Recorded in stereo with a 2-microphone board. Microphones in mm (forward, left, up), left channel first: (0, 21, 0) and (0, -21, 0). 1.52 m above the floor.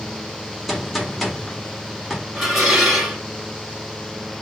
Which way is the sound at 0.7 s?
Centre (ahead or behind).